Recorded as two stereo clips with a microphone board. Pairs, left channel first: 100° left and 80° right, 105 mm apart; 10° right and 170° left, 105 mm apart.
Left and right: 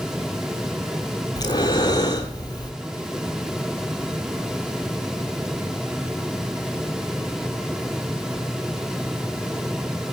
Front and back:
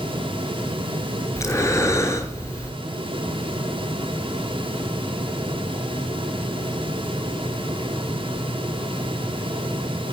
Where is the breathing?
50° left, 0.8 m.